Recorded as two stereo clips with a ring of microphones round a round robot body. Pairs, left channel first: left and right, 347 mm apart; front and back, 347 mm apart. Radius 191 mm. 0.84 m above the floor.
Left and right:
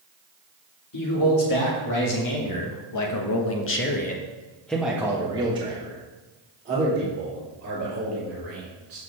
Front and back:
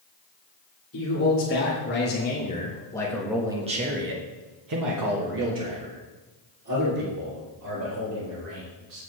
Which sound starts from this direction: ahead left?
A man speaking, at 0.9 s.